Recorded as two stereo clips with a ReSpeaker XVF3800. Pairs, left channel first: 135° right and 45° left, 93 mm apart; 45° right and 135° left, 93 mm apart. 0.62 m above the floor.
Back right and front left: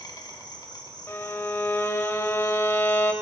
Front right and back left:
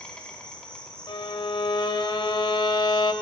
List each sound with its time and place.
0.0 s an insect: 120° right, 1.2 m
1.1 s a violin: 75° right, 0.6 m